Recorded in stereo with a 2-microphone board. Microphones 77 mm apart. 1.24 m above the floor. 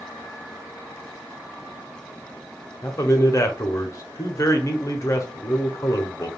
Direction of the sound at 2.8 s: 40° left (ahead or behind).